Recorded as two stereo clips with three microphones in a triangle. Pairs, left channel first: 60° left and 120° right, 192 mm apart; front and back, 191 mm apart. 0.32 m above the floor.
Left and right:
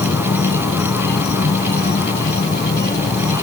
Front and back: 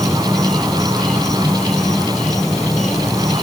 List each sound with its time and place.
0.0 s an insect: 90° left